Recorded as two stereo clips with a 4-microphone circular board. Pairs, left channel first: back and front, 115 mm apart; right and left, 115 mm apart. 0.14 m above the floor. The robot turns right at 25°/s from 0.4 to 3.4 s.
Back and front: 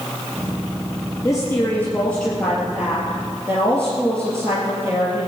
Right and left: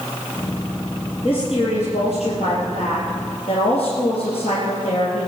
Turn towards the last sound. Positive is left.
turn(degrees=-65)